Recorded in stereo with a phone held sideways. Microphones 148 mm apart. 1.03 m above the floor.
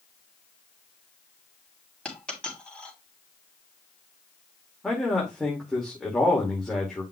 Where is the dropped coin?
5° left (ahead or behind), 3.5 m.